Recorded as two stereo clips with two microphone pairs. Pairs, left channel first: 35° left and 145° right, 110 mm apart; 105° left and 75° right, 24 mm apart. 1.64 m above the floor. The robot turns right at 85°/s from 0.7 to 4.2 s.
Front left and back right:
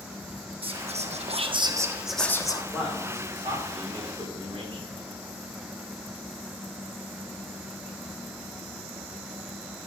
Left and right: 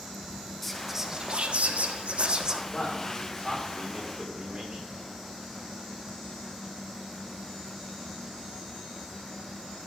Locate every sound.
0.6 s whispering: 175° right, 0.9 m; by 2.6 s 10° right, 0.9 m
2.7 s a man speaking: 120° left, 5.5 m; by 5.0 s 115° right, 5.5 m